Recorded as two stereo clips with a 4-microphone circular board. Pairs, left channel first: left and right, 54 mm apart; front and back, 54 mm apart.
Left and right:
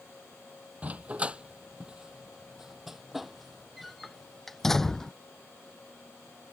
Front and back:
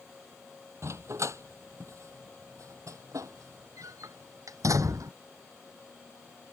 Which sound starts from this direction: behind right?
A dog barking, at 0.8 s.